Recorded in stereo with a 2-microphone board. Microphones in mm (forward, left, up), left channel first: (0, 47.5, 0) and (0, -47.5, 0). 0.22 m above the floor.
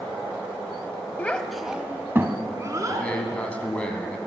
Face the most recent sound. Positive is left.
turn(degrees=15)  # may be behind; listen again after turning